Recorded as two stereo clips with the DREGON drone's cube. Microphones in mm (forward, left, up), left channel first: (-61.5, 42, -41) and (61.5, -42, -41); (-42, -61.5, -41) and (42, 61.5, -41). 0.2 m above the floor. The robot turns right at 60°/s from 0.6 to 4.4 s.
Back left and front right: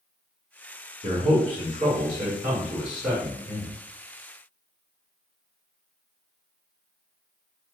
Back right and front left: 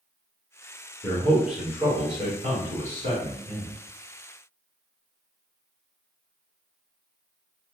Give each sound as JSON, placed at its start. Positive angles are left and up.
{"t": 1.0, "sound": "a man speaking", "azimuth_deg": -60, "distance_m": 1.6}